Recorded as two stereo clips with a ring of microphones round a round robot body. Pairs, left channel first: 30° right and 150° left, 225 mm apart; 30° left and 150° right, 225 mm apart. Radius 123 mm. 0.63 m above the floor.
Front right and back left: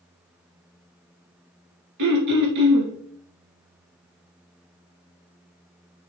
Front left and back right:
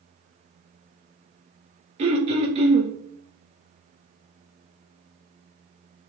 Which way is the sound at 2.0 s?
145° left.